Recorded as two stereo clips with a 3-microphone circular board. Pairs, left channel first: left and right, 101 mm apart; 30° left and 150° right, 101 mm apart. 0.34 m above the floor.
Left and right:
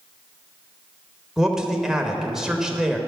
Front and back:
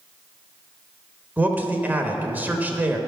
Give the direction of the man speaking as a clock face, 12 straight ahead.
5 o'clock.